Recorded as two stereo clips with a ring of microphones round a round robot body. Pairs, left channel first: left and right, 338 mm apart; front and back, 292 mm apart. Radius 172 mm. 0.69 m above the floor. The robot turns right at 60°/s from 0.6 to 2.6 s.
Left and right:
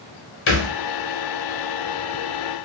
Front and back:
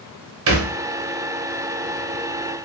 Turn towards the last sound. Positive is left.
turn(degrees=-95)